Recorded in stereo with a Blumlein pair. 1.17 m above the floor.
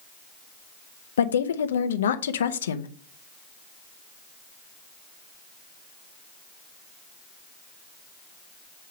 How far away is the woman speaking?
About 0.6 m.